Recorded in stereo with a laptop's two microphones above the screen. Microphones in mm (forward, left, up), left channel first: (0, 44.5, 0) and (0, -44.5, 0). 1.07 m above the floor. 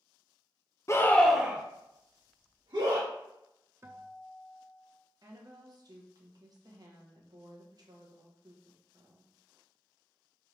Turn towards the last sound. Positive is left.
turn(degrees=-50)  # may be behind; listen again after turning